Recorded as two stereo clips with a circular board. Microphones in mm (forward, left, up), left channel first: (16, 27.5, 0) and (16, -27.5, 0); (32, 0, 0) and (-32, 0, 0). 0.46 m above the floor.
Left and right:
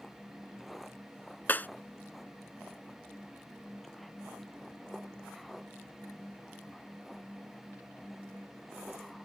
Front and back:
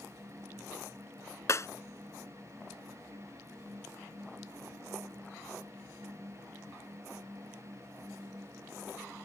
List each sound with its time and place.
1.5 s breaking glass: 35° left